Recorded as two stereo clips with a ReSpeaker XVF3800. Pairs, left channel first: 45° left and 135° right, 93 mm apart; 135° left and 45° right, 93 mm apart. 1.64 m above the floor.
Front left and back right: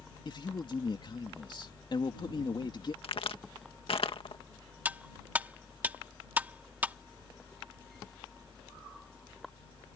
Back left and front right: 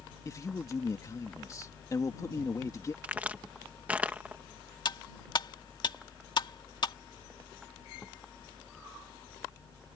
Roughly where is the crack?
Ahead left.